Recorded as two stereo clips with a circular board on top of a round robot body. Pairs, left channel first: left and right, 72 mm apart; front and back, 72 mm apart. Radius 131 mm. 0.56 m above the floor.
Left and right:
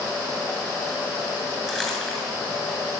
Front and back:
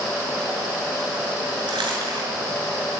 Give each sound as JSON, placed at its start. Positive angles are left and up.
{"t": 1.7, "sound": "crumpling", "azimuth_deg": 175, "distance_m": 7.5}